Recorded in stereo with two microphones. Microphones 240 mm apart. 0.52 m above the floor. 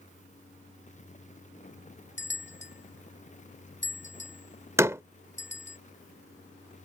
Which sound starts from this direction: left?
A bell, at 2.2 s.